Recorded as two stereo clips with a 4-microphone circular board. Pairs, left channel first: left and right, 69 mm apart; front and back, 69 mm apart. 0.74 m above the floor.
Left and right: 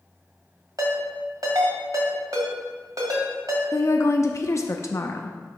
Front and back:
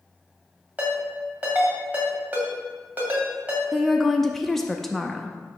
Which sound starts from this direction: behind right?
A ringtone, at 0.8 s.